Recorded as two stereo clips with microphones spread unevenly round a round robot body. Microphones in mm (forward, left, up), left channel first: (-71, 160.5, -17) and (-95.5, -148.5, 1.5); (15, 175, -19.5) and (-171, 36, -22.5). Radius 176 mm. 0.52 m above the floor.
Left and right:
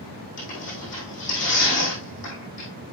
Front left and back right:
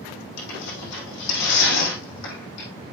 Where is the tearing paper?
15° left, 4 m.